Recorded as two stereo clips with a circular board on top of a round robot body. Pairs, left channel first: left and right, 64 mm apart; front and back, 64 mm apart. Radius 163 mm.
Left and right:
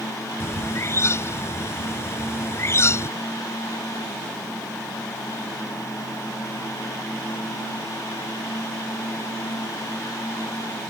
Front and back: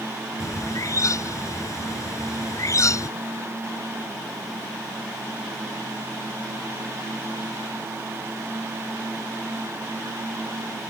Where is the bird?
40° left.